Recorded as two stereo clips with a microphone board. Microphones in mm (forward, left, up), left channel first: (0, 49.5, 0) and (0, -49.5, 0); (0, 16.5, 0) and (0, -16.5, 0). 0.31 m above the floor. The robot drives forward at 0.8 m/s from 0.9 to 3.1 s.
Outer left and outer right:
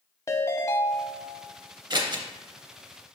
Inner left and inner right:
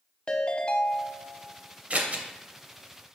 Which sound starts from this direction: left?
A ringtone, at 0.3 s.